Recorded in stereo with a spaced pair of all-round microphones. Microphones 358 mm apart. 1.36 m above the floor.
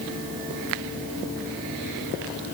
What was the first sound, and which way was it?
Only background noise.